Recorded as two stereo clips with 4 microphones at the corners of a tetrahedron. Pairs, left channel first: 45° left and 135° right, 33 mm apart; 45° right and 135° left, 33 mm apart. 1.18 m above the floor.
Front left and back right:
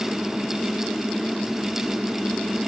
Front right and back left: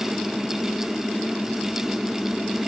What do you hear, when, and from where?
Only background noise.